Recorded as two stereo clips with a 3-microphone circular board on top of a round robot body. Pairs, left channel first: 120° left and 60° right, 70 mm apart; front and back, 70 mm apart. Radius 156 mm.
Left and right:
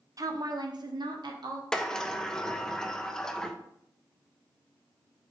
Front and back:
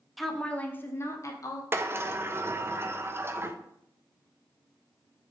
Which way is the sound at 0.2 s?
90° right.